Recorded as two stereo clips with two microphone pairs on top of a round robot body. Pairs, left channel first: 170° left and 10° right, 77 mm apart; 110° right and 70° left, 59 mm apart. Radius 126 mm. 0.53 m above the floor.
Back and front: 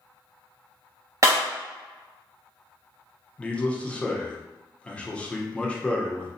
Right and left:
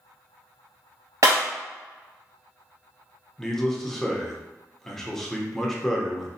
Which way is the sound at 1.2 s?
35° left.